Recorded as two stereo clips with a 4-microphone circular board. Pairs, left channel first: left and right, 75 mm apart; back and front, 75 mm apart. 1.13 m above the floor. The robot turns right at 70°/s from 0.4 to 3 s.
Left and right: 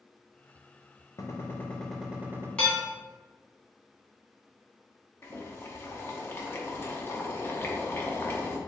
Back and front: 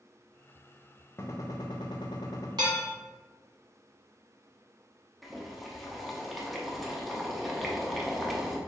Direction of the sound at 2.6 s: 15° left.